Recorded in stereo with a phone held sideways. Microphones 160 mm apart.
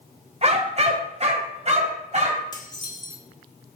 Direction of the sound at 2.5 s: 25° left (ahead or behind).